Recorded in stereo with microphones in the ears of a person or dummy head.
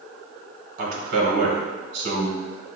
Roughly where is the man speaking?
Right.